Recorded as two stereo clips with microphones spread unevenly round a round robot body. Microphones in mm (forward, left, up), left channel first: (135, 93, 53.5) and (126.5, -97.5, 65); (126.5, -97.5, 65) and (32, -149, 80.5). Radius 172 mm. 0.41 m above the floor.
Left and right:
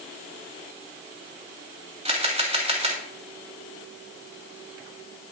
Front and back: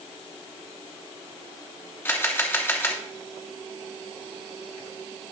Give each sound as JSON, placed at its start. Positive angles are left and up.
{"t": 2.0, "sound": "a camera shutter", "azimuth_deg": -35, "distance_m": 3.0}